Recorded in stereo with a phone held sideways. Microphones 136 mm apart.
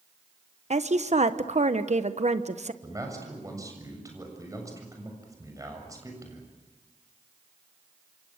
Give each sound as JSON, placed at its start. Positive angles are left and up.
{"t": 0.7, "sound": "a woman speaking", "side_deg": -55, "distance_m": 1.2}
{"t": 2.8, "sound": "a man speaking", "side_deg": -25, "distance_m": 7.0}